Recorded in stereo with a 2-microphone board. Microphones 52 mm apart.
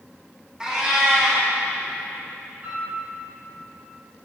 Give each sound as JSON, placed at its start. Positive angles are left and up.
{"t": 0.6, "sound": "a cat meowing", "side_deg": -15, "distance_m": 1.3}
{"t": 2.6, "sound": "a piano", "side_deg": -45, "distance_m": 2.5}